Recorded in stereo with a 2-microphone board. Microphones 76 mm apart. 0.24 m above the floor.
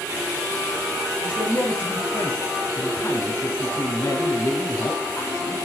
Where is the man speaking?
25° left (ahead or behind), 2 m.